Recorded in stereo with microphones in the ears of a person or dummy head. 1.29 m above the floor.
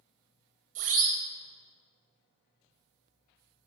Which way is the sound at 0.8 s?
45° right (ahead or behind).